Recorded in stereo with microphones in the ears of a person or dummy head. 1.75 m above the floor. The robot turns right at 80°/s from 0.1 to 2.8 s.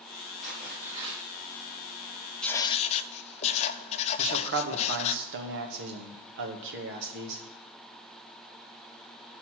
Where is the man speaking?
70° right (ahead or behind), 1.8 m.